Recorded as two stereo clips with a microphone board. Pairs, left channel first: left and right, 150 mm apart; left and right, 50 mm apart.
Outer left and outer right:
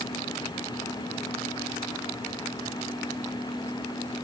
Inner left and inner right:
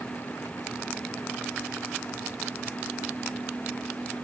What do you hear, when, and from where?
Only background noise.